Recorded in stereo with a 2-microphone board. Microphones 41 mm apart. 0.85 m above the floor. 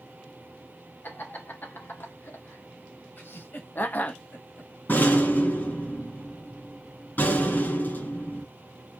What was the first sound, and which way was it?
Laughter, 65° left (ahead or behind).